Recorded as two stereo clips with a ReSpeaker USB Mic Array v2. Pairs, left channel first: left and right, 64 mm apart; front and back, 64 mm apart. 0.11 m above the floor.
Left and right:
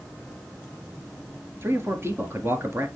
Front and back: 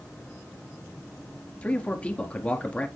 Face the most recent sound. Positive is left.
turn(degrees=-60)